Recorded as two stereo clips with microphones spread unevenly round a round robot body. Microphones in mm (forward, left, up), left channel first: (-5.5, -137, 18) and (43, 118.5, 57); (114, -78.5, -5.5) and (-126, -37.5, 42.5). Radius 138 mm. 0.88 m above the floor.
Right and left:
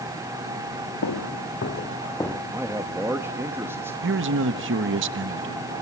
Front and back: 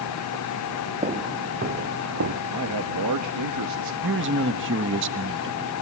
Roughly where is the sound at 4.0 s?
Behind left.